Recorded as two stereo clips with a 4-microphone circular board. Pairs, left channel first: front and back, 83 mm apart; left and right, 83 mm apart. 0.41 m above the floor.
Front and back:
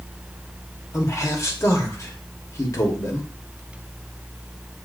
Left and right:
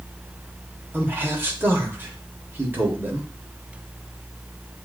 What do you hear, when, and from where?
0.9 s a man speaking: 35° right, 1.2 m